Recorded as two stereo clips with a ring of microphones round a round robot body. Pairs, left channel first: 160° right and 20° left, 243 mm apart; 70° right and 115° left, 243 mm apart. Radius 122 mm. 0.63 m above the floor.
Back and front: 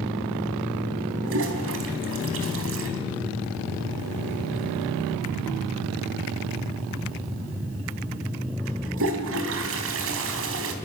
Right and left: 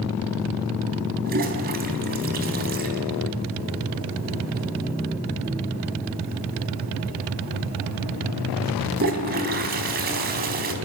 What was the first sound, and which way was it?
A toilet flushing, 60° left.